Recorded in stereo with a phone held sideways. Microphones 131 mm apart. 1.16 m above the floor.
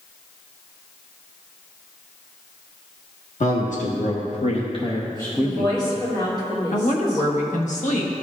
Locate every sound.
3.4 s a man speaking: 70° left (ahead or behind), 1.3 m; by 5.8 s centre (ahead or behind), 1.0 m
5.4 s a woman speaking: 35° left (ahead or behind), 3 m
6.7 s a woman speaking: 70° left (ahead or behind), 1.2 m